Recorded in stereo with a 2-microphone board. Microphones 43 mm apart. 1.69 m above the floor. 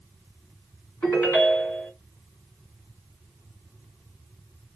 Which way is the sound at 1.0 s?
45° left (ahead or behind).